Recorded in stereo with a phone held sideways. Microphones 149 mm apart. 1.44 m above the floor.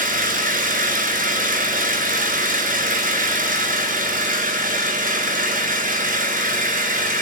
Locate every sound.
0.0 s an engine running: 75° right (ahead or behind), 5 m